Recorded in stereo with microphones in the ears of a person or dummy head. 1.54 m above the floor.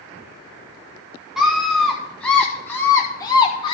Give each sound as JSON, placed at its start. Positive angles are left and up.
{"t": 1.4, "sound": "a scream", "side_deg": 0, "distance_m": 2.5}